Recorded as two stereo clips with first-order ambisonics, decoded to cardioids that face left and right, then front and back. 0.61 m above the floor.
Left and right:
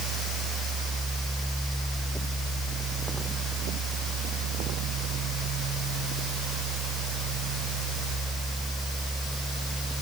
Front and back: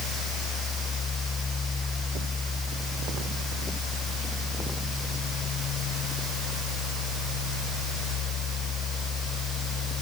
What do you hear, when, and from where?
Only background noise.